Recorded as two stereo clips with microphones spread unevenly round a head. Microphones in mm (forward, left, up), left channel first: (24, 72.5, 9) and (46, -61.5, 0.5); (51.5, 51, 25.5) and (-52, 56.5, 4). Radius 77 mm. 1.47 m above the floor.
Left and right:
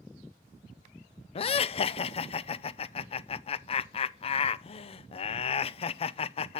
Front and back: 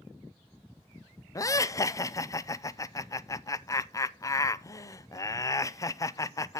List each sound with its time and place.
1.4 s laughter: 55° left, 0.5 m